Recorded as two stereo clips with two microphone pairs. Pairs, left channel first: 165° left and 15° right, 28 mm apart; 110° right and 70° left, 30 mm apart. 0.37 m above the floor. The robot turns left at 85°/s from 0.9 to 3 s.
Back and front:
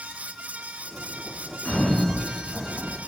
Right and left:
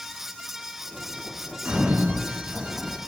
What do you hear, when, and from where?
1.6 s a sliding door: 105° left, 4 m; by 3.0 s 10° right, 4 m